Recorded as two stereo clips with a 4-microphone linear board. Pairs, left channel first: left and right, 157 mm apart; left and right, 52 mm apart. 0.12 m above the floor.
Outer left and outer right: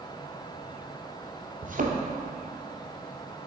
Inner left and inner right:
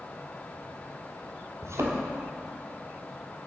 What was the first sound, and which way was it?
A thud, 65° right (ahead or behind).